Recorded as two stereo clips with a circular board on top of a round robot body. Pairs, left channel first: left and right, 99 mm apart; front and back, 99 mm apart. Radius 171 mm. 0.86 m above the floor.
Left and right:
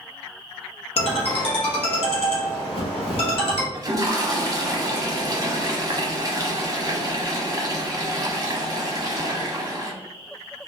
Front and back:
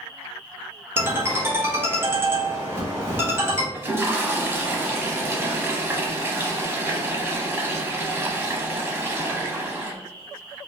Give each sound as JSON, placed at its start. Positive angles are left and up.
{"t": 1.0, "sound": "a ringtone", "azimuth_deg": 115, "distance_m": 1.0}
{"t": 3.7, "sound": "a toilet flushing", "azimuth_deg": -125, "distance_m": 0.9}